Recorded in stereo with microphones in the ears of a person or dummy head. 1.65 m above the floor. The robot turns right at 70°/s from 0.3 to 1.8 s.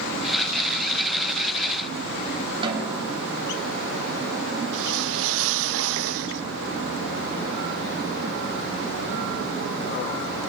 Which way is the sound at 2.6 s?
30° right (ahead or behind).